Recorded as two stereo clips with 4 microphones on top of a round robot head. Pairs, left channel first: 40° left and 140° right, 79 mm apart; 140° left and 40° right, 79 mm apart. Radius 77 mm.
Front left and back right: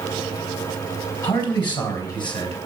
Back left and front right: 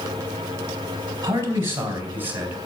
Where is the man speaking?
15° left, 4 m; by 2.6 s 25° left, 3.5 m.